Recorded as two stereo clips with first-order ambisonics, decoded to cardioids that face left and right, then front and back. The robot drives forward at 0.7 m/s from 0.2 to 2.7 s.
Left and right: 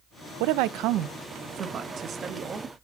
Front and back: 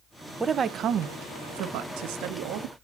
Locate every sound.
0.4 s a woman speaking: 95° right, 0.5 m; by 2.7 s 165° right, 1.7 m